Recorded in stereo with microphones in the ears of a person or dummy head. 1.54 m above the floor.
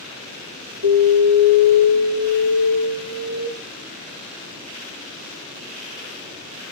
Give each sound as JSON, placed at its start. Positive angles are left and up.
{"t": 0.8, "sound": "an alarm", "side_deg": -40, "distance_m": 2.0}